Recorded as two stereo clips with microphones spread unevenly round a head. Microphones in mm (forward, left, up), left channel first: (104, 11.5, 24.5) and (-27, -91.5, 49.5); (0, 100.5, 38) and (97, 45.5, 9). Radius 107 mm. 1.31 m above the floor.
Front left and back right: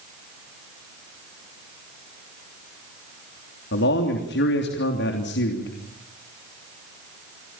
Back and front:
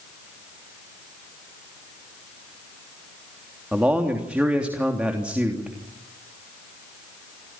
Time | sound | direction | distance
3.7 | a man speaking | 50° left | 3 m